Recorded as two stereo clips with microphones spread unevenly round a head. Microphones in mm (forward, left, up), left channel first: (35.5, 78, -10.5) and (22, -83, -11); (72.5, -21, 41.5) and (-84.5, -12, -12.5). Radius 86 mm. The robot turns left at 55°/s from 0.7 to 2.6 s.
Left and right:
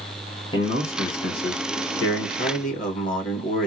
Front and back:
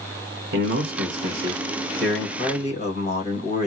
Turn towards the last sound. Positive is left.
turn(degrees=45)